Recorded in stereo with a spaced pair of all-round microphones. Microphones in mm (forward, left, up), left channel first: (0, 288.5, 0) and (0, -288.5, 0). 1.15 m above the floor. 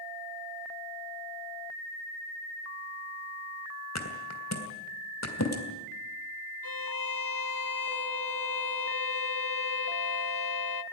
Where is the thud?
25° left (ahead or behind), 3 m.